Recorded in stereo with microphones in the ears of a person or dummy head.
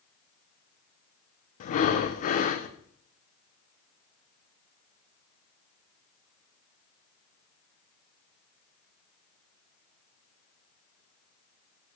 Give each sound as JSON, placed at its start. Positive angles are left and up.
{"t": 1.6, "sound": "breathing", "side_deg": 45, "distance_m": 0.8}